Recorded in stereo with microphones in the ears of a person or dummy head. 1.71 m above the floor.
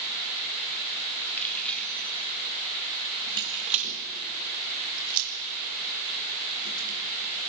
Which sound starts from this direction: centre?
Keys jangling, at 1.4 s.